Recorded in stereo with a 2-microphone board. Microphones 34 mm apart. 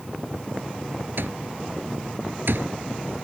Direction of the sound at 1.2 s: 90° right.